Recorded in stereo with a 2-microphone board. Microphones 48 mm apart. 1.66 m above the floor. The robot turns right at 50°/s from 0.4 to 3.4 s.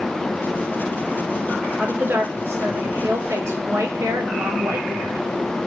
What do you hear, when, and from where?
1.8 s a woman speaking: 155° right, 2 m; by 5.2 s 75° right, 2 m